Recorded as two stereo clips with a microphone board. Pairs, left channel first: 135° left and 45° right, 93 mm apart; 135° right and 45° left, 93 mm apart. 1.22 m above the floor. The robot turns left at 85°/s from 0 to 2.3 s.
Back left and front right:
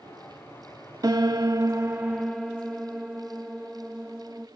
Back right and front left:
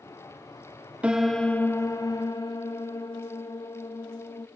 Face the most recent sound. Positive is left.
turn(degrees=-135)